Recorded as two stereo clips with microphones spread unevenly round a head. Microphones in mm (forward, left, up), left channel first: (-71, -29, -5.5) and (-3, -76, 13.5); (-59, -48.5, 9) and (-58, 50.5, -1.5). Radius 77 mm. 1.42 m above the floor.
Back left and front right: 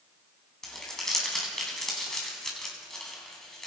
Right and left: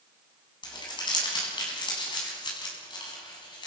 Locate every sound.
0.6 s crumpling: 130° right, 9 m